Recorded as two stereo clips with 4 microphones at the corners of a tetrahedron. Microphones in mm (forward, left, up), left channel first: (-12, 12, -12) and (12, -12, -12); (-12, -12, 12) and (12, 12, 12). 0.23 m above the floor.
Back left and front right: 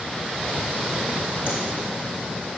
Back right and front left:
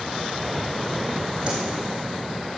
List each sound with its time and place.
1.5 s a whoosh: 15° right, 3.5 m